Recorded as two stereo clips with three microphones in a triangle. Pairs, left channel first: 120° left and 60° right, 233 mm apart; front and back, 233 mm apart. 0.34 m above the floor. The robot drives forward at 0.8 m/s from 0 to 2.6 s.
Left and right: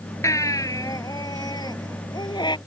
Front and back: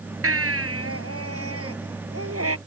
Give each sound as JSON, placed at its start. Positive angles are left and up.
{"t": 0.2, "sound": "a baby crying", "azimuth_deg": -165}